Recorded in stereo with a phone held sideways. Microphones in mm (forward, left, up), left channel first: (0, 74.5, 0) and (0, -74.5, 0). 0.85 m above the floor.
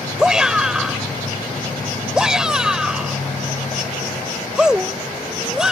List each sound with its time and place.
0.2 s a shout: 5° right (ahead or behind)